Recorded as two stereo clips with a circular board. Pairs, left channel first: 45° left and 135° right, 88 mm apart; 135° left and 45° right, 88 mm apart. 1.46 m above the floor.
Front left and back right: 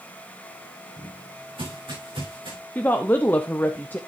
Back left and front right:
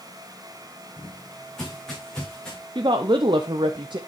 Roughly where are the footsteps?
Behind right.